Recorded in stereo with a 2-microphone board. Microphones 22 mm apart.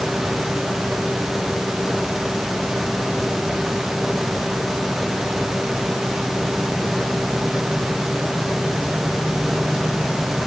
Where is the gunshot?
No gunshot in this recording.